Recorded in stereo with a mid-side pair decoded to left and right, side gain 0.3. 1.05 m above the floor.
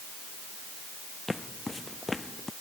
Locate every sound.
1.3 s footsteps: 25° left; by 2.5 s 30° left